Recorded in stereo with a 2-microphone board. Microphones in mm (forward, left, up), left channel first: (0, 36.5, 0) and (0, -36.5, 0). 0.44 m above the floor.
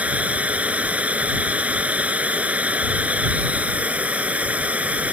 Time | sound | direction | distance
0.0 | running water | 20° right (ahead or behind) | ?